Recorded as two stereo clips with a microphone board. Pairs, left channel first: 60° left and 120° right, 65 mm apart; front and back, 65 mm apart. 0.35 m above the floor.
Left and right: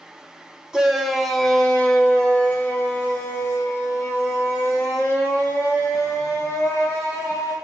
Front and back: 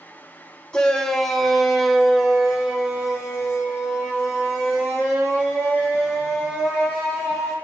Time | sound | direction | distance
0.7 | a shout | 55° right | 1.3 m